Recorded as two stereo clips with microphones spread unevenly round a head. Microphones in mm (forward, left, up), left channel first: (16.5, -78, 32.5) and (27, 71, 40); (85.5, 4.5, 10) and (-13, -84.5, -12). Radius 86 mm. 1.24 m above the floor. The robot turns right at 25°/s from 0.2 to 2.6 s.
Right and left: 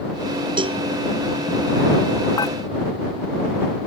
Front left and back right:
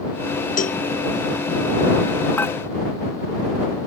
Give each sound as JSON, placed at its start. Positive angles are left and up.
{"t": 0.6, "sound": "a cowbell", "azimuth_deg": 25}
{"t": 2.4, "sound": "dishes clattering", "azimuth_deg": -30}